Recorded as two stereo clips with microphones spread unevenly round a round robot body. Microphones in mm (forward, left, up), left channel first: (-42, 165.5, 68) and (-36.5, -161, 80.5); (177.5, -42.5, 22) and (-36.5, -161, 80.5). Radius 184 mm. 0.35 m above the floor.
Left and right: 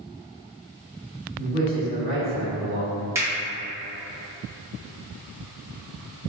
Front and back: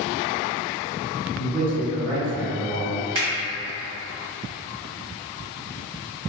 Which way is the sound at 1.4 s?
35° left.